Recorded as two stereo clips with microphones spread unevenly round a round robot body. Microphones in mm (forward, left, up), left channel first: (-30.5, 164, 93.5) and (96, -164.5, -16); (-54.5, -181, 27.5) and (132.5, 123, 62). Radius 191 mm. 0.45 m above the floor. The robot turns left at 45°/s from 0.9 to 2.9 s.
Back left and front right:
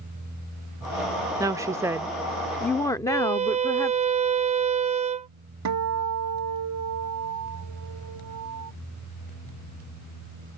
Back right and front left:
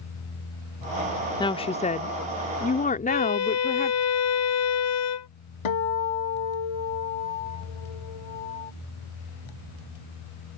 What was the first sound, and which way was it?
A woman speaking, 70° right.